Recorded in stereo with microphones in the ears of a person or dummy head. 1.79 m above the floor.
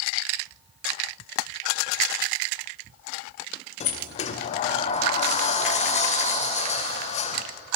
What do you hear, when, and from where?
3.8 s a sliding door: 45° left (ahead or behind), 0.6 m